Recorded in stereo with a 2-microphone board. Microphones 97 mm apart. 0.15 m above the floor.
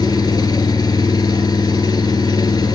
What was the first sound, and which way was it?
An engine running, 50° left (ahead or behind).